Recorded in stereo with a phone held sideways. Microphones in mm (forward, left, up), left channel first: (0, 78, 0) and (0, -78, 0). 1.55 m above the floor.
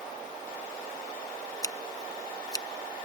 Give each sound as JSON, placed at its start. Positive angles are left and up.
{"t": 1.6, "sound": "scissors", "side_deg": 25}